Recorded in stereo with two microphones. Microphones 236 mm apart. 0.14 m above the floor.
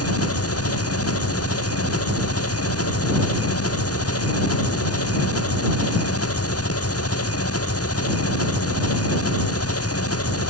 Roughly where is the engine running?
Left.